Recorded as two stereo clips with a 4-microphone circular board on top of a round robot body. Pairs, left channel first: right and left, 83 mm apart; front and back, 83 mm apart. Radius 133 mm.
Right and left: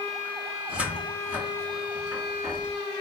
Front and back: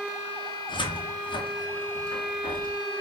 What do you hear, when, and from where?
0.7 s a cupboard door: 15° left, 1.7 m